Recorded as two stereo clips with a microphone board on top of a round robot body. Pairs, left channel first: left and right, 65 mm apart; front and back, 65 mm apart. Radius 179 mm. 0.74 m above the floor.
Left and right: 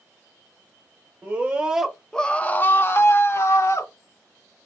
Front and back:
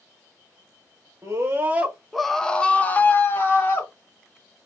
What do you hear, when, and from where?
1.2 s a scream: 145° right, 0.8 m; by 3.9 s 50° left, 1.2 m